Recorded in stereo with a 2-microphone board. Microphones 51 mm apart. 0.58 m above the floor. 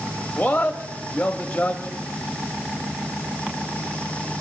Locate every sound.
0.4 s a man speaking: 15° left (ahead or behind), 1.0 m